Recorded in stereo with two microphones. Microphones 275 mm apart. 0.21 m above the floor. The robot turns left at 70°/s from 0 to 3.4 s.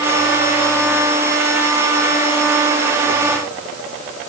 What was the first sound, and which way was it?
Only background noise.